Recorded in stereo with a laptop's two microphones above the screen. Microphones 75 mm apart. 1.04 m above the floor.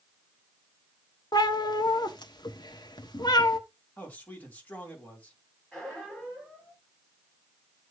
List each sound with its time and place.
1.3 s a cat meowing: 65° left (ahead or behind), 1.1 m
4.0 s a man speaking: 20° left (ahead or behind), 2.5 m
5.7 s a squeak: 5° left (ahead or behind), 5.5 m